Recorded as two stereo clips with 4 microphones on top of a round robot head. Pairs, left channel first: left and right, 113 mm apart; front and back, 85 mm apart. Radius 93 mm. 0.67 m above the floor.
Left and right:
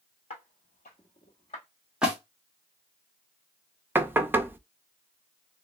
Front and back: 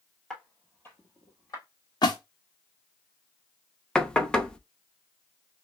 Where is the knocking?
65° right, 0.5 m.